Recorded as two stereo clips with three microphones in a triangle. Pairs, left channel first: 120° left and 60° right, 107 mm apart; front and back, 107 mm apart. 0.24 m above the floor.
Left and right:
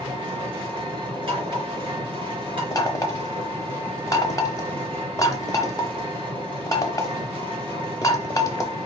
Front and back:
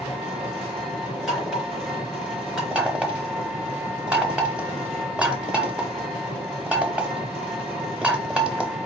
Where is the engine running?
100° right, 4 m.